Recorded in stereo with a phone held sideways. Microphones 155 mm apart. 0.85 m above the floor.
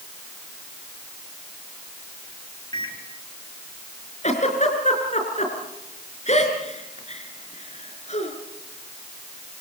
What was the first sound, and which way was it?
A microwave, 25° left (ahead or behind).